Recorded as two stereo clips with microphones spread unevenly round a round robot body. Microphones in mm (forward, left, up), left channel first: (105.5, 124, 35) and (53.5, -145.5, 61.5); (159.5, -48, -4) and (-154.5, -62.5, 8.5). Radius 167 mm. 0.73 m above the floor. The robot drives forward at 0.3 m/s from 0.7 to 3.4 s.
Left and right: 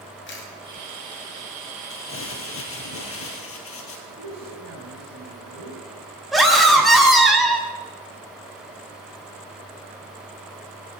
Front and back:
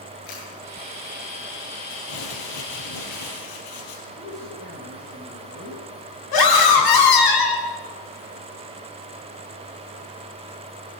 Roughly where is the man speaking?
Ahead right.